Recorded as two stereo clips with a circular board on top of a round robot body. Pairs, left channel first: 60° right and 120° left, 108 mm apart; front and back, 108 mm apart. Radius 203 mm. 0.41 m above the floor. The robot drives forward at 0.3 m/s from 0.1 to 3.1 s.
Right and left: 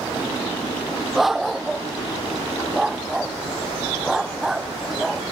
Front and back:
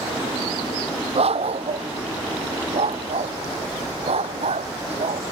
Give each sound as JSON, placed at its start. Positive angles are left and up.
{"t": 1.1, "sound": "a dog barking", "azimuth_deg": -150}